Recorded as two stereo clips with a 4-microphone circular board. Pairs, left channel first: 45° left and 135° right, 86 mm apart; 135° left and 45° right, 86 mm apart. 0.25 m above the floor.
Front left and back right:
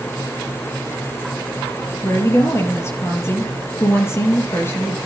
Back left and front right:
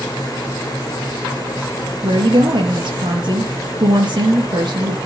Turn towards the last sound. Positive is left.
turn(degrees=-15)